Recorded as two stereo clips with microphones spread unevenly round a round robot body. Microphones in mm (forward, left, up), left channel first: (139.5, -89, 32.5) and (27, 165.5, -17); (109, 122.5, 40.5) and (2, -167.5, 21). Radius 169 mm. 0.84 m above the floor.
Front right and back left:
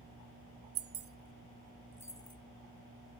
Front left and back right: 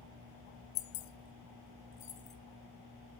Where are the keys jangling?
75° left, 0.7 m; by 2.4 s 10° left, 1.4 m.